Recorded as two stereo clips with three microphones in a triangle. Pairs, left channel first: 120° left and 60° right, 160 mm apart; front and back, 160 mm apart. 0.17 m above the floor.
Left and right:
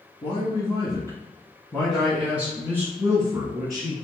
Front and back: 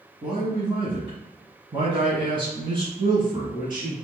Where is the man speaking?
140° left, 1.7 m; by 3.9 s 120° right, 2.5 m.